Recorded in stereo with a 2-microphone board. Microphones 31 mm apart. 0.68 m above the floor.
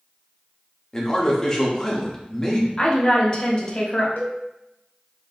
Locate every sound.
0.9 s a man speaking: 20° left (ahead or behind), 0.9 m
2.8 s a woman speaking: 30° left (ahead or behind), 1.1 m
4.2 s a cowbell: 80° left, 0.8 m